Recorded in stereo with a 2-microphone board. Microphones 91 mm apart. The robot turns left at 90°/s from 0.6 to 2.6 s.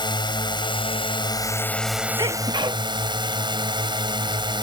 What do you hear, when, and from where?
0.0 s a drone: 120° left; by 4.6 s 60° right
2.2 s a sneeze: 65° right; by 2.8 s 105° right